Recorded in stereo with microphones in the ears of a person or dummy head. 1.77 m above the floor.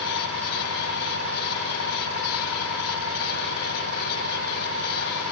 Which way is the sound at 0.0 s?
75° left (ahead or behind).